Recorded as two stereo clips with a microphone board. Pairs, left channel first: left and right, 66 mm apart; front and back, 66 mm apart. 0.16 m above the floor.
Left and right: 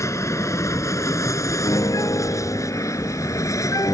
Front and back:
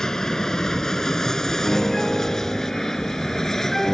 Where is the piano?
85° left.